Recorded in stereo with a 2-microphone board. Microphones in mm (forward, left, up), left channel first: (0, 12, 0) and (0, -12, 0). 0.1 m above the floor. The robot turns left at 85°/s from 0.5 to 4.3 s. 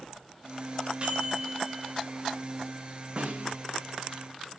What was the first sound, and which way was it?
A microwave, 145° right.